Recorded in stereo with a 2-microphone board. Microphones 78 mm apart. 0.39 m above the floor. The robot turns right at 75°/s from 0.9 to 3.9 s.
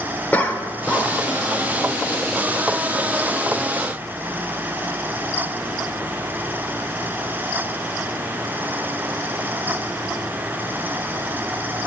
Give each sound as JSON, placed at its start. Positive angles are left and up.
{"t": 0.3, "sound": "a cough", "side_deg": 20, "distance_m": 0.8}